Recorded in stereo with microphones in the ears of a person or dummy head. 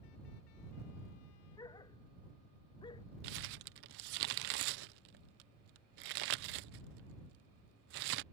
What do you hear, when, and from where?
1.6 s a dog barking: 15° left (ahead or behind); by 3.0 s 20° left (ahead or behind)
3.2 s crumpling: 55° right (ahead or behind)